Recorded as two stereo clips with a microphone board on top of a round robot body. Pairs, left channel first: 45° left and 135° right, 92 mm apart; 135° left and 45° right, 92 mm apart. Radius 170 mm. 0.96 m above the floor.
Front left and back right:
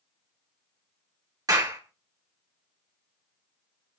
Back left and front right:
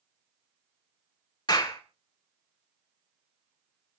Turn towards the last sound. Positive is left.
turn(degrees=175)